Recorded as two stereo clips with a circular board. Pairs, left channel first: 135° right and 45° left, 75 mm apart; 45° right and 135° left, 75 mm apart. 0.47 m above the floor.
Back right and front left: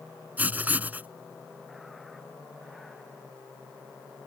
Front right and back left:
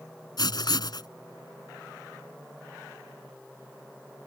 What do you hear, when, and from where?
0.4 s writing: 20° right